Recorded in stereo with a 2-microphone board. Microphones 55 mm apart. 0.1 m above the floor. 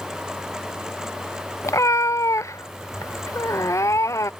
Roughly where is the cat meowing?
Left.